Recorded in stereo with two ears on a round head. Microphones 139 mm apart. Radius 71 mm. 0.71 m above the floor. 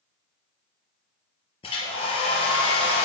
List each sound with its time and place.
1.6 s a hair dryer: 40° left (ahead or behind), 4.5 m